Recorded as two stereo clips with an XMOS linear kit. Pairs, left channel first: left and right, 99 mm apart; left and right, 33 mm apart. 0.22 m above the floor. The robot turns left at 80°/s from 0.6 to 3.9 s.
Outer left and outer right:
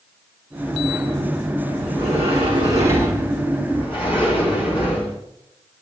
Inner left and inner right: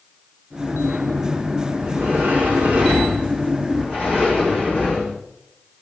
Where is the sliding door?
70° right, 5 m; by 5.2 s 120° left, 5 m.